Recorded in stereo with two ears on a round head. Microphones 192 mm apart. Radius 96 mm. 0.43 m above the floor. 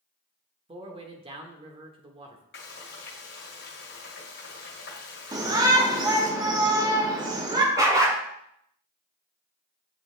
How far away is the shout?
About 0.9 m.